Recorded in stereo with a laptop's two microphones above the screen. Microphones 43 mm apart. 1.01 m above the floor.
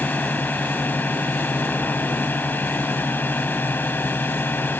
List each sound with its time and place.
0.0 s a drone: 45° left (ahead or behind); by 4.8 s 55° left (ahead or behind)